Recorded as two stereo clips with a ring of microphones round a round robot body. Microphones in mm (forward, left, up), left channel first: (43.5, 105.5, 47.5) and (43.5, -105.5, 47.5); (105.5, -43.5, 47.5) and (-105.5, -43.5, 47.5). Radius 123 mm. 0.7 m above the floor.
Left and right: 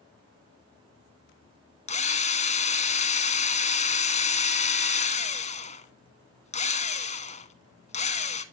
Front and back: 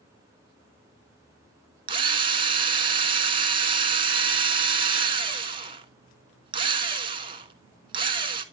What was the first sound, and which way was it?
A drill, 125° left.